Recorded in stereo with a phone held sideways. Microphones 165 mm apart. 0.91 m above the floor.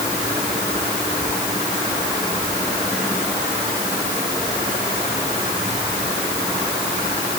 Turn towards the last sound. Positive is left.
No sound to turn to.